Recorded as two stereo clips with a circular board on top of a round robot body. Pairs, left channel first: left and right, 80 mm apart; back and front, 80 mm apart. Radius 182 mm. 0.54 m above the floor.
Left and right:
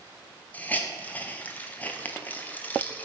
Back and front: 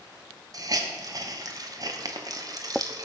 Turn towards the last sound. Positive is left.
turn(degrees=25)